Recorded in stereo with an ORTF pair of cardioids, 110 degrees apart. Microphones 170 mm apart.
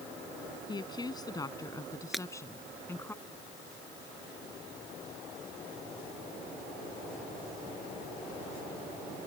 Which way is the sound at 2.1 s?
Straight ahead.